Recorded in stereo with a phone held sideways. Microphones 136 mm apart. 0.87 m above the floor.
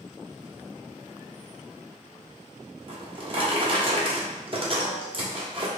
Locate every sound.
2.9 s a drawer: 40° right (ahead or behind), 0.7 m